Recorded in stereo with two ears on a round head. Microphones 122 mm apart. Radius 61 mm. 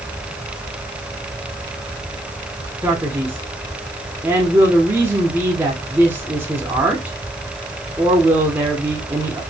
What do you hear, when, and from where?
2.8 s a man speaking: 15° right (ahead or behind), 1.3 m